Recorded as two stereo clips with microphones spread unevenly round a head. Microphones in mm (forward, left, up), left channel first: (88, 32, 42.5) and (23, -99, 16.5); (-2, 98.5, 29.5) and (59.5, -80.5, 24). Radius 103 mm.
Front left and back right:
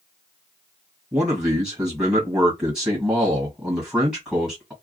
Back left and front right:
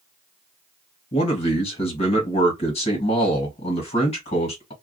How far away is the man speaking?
About 1.6 m.